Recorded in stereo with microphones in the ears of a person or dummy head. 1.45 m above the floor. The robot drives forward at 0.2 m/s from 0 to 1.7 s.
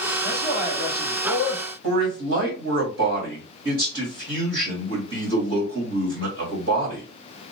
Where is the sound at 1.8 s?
50° right (ahead or behind), 1.6 m.